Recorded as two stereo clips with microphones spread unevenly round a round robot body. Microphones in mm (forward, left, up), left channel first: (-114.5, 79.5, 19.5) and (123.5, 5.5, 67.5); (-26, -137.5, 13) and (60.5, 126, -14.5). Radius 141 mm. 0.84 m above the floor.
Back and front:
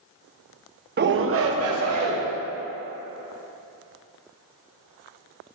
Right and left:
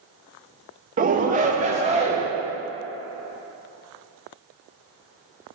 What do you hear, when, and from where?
1.0 s a shout: 30° left, 0.8 m; by 2.2 s 5° left, 2 m